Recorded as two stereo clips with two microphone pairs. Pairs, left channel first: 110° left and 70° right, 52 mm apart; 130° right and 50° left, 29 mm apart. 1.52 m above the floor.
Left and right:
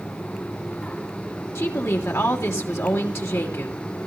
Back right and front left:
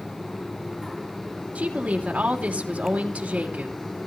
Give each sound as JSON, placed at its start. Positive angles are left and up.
{"t": 1.6, "sound": "a woman speaking", "azimuth_deg": 85, "distance_m": 3.0}